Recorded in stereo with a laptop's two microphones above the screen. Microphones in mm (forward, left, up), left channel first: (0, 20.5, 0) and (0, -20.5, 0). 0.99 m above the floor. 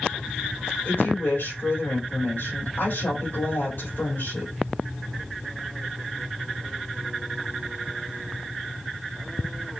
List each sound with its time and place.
0.8 s a woman speaking: 65° left (ahead or behind), 4 m